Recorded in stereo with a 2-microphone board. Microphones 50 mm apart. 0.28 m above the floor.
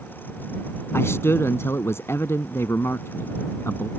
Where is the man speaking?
60° left (ahead or behind).